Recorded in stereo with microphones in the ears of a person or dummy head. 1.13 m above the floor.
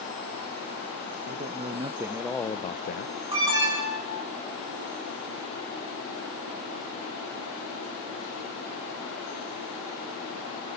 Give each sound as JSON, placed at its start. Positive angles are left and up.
{"t": 1.3, "sound": "a man speaking", "side_deg": -40, "distance_m": 1.0}
{"t": 3.3, "sound": "an alarm", "side_deg": -30, "distance_m": 9.0}